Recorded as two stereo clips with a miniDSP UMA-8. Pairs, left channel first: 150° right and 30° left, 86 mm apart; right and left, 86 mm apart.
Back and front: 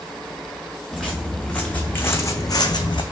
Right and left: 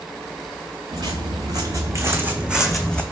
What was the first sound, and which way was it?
Footsteps, 120° left.